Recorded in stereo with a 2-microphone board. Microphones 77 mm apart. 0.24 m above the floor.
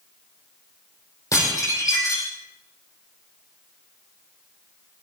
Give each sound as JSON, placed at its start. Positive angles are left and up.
{"t": 1.3, "sound": "dishes clattering", "side_deg": 45, "distance_m": 5.5}